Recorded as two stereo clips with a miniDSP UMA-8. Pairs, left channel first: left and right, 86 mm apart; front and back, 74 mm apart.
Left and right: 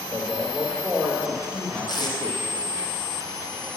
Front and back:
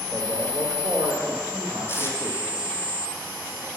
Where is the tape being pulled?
55° left, 1.2 m.